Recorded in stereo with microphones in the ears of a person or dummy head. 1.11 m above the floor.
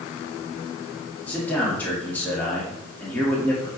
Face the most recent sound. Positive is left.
turn(degrees=5)  # may be behind; listen again after turning